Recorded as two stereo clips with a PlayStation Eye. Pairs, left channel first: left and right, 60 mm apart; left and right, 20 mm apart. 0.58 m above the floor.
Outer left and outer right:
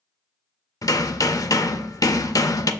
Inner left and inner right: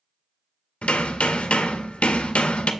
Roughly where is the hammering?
Left.